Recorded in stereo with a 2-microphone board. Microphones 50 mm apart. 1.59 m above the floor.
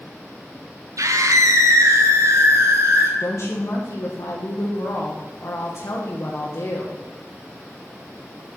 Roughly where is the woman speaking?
Left.